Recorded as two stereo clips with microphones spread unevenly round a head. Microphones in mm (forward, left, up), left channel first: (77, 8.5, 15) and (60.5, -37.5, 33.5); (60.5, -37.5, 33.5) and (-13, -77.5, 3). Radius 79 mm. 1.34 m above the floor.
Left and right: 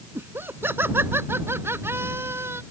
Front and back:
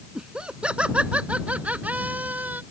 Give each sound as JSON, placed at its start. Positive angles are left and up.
{"t": 0.1, "sound": "laughter", "azimuth_deg": -70}